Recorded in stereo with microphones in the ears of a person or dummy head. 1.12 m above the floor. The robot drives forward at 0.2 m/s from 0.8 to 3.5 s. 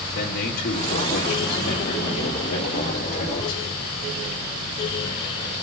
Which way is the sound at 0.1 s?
50° left (ahead or behind).